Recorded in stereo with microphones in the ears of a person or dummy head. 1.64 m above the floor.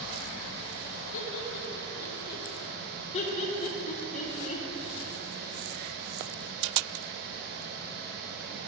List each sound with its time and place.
1.1 s laughter: 75° left (ahead or behind), 1.8 m; by 2.5 s 45° left (ahead or behind), 1.6 m
3.1 s laughter: 40° left (ahead or behind), 1.2 m